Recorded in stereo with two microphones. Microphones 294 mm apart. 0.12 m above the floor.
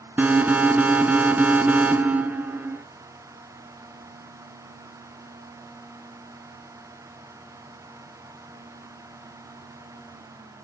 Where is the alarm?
5° right (ahead or behind), 0.8 m.